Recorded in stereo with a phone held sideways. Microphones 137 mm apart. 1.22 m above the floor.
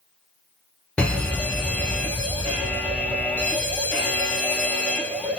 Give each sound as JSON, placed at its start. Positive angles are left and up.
{"t": 1.0, "sound": "a fire alarm", "side_deg": 10, "distance_m": 1.0}